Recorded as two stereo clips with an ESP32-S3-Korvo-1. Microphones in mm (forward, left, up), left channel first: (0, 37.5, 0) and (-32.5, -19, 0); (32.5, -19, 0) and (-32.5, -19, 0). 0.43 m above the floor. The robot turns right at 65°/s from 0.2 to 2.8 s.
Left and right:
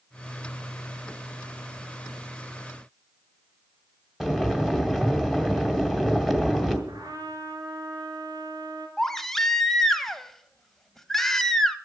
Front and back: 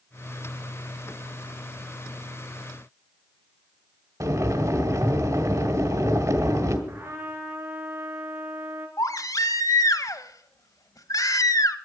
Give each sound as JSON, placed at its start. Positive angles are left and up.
{"t": 4.2, "sound": "boiling", "azimuth_deg": 155, "distance_m": 2.0}
{"t": 6.9, "sound": "a trumpet", "azimuth_deg": -130, "distance_m": 3.5}
{"t": 9.0, "sound": "a baby crying", "azimuth_deg": -25, "distance_m": 0.9}